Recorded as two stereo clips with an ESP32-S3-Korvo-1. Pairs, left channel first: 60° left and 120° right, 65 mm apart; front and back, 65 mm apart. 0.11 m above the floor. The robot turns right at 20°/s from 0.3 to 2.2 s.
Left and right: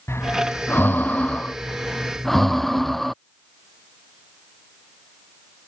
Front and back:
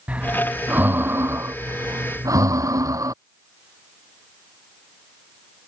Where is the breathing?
110° left; by 3.1 s 145° left.